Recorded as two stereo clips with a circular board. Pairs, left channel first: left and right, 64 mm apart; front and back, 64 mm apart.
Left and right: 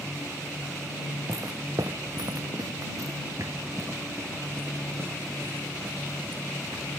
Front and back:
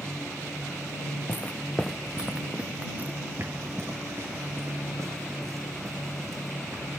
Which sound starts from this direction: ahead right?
Footsteps, at 1.3 s.